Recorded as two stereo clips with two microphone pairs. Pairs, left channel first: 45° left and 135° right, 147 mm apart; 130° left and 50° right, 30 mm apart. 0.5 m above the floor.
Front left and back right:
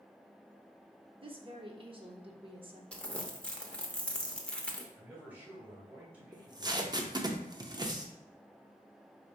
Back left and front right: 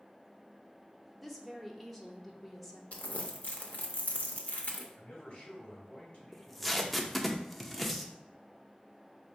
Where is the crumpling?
125° left, 0.7 m.